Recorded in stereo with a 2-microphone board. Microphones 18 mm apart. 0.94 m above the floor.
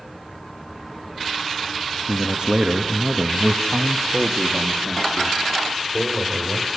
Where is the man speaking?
45° right (ahead or behind), 2 m; by 6.7 s centre (ahead or behind), 4.5 m.